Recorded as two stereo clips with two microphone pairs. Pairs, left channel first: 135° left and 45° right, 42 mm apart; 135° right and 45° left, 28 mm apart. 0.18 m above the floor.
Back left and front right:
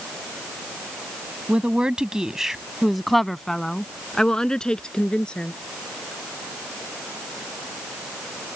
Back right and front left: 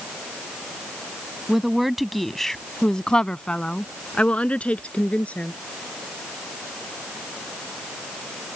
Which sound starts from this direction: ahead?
A woman speaking, at 1.5 s.